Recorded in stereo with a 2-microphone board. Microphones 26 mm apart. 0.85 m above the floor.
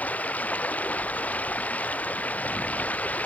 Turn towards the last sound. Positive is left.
turn(degrees=80)